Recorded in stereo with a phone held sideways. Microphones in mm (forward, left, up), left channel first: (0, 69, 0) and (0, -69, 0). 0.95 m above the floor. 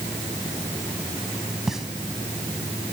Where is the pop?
Centre (ahead or behind), 1.3 m.